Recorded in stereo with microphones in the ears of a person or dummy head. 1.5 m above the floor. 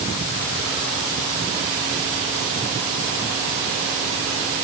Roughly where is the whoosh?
I don't hear a whoosh.